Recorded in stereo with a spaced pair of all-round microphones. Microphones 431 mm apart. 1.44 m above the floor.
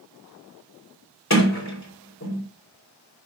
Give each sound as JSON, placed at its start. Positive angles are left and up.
{"t": 1.3, "sound": "a sliding door", "side_deg": 40, "distance_m": 2.5}